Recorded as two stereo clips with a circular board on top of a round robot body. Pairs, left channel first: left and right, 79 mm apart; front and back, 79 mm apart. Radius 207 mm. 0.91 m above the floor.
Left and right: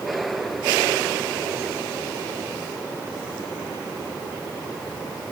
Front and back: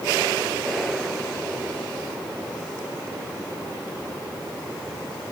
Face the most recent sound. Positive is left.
No sound to turn to.